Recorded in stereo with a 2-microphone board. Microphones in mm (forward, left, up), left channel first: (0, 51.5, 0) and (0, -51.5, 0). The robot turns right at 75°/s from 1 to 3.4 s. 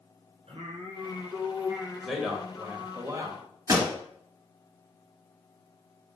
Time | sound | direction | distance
0.5 | singing | 75° right | 1.3 m
2.0 | a man speaking | centre (ahead or behind) | 1.1 m
3.7 | a pop | 35° right (ahead or behind) | 1.7 m